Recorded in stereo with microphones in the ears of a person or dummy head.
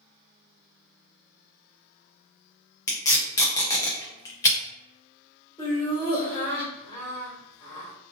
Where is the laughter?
15° left (ahead or behind), 1.3 m.